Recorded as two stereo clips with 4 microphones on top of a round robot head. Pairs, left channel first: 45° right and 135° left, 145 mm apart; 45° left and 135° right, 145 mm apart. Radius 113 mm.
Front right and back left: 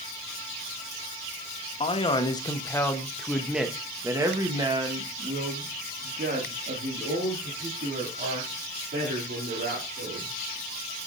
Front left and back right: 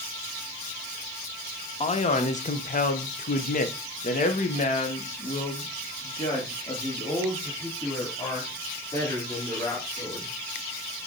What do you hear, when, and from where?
1.8 s a man speaking: 5° left, 1.4 m; by 10.3 s 115° left, 4 m